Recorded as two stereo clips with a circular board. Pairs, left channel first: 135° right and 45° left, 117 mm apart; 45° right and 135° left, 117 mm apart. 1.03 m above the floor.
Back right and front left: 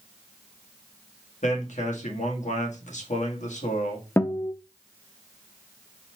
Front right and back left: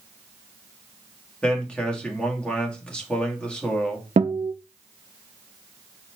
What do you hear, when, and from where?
1.4 s a man speaking: 125° right, 1.6 m
4.2 s a guitar: 155° left, 0.5 m